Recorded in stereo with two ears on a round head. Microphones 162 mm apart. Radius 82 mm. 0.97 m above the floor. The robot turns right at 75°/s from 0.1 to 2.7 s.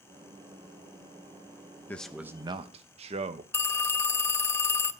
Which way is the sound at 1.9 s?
165° left.